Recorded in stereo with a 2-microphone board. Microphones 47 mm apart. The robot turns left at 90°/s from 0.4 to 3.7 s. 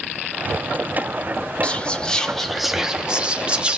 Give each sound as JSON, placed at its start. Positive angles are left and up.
{"t": 1.6, "sound": "whispering", "side_deg": 25, "distance_m": 0.6}